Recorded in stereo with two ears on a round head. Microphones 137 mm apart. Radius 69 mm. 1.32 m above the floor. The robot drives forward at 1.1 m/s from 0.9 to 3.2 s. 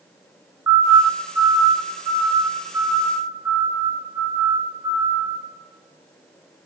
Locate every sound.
0.7 s a siren: 20° right (ahead or behind), 2.5 m